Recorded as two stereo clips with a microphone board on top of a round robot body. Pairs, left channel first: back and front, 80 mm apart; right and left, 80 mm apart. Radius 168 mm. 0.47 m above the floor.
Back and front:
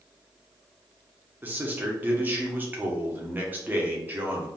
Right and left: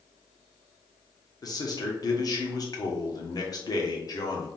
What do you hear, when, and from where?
1.4 s a man speaking: 65° right, 1.5 m